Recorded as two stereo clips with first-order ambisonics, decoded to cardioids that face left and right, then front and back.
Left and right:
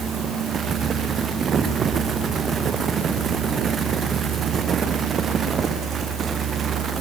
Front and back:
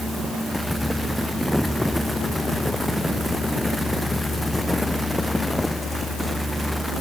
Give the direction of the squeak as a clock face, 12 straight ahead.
I don't hear a squeak.